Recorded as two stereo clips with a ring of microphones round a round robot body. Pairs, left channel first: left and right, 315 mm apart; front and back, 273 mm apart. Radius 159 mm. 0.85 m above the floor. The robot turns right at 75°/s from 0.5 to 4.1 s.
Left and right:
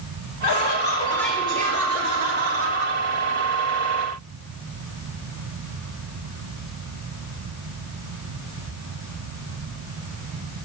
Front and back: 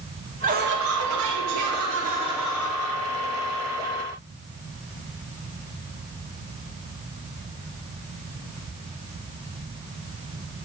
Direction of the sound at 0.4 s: 120° left.